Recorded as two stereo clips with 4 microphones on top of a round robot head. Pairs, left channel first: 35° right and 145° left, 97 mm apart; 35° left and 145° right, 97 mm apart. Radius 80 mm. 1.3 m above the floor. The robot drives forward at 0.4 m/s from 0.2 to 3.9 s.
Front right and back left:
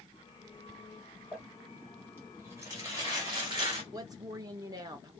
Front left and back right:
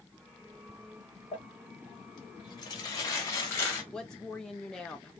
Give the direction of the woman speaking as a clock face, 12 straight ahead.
8 o'clock.